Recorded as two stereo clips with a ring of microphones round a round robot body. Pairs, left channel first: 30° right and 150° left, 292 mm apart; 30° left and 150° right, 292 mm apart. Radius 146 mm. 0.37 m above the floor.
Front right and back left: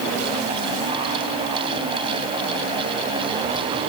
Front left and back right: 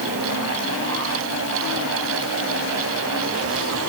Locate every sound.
Only background noise.